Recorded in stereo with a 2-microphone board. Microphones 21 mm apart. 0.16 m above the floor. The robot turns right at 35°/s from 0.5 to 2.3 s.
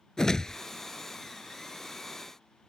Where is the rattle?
No rattle in this recording.